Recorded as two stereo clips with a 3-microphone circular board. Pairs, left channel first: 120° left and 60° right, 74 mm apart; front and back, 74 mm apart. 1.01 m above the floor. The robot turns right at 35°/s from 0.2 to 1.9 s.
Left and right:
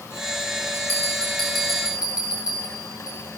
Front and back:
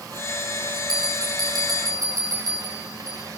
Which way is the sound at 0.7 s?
175° right.